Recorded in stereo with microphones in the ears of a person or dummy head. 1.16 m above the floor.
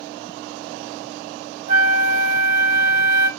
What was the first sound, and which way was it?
A flute, 60° right (ahead or behind).